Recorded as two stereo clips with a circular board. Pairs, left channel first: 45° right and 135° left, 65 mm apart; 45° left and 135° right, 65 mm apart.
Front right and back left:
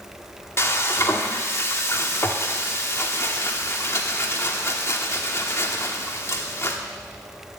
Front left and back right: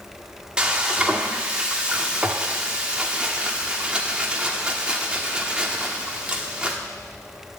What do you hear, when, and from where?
0.6 s frying: 70° right, 1.4 m